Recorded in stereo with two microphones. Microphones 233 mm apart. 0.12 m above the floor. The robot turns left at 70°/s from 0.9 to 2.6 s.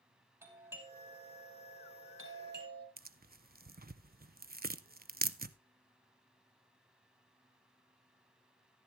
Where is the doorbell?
10° right (ahead or behind), 4.5 m; by 2.9 s 45° right (ahead or behind), 4.5 m.